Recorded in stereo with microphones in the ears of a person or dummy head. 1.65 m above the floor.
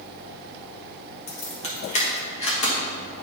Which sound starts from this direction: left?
Keys jangling, at 1.3 s.